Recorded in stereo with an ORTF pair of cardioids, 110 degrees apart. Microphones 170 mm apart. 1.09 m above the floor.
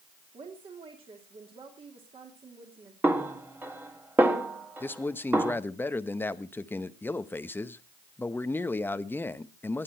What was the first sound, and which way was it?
A woman speaking, 35° right.